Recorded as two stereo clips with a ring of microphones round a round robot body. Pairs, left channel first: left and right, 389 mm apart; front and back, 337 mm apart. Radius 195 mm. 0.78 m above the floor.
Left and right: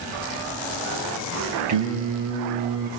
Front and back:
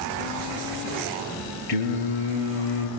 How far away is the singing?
About 6.5 m.